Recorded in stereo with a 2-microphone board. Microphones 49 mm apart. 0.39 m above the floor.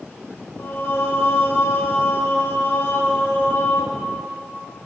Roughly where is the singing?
Left.